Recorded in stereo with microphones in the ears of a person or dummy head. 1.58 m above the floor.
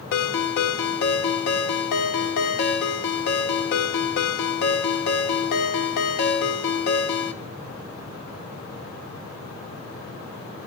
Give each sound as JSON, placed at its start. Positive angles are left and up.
{"t": 0.1, "sound": "a ringtone", "side_deg": 50, "distance_m": 1.9}